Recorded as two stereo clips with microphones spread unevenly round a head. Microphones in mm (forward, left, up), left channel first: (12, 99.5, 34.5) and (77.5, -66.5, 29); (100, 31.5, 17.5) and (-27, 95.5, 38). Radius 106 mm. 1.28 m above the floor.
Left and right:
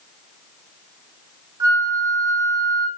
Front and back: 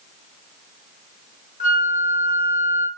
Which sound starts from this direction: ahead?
A flute, at 1.6 s.